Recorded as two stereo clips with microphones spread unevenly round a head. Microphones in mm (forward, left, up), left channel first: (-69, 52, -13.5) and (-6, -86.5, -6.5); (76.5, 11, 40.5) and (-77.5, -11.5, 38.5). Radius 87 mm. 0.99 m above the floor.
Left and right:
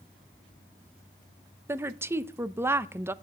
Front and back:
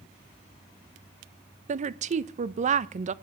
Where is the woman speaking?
140° right, 0.7 m.